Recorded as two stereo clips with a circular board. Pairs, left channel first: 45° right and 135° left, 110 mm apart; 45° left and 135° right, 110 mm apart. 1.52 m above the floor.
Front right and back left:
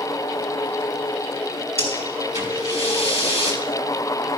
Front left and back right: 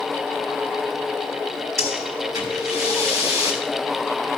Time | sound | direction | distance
1.8 | breathing | 75° right | 3.5 m